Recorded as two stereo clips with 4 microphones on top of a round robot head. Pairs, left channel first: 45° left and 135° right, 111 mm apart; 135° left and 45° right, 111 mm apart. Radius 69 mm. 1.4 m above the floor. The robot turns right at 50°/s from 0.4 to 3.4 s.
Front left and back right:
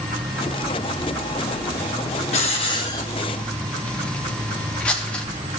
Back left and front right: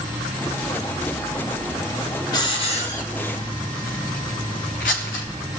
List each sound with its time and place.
2.3 s a hiss: 75° left, 1.1 m; by 5.2 s 125° left, 1.1 m